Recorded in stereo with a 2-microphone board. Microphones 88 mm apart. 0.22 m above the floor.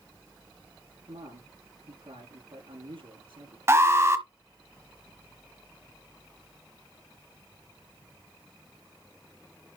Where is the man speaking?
80° right, 5 m.